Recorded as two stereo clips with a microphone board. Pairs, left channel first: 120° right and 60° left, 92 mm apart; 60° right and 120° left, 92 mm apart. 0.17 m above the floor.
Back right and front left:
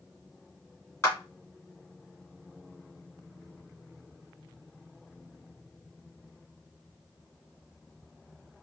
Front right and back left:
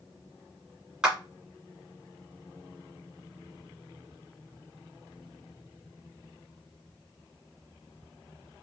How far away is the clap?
About 1.6 m.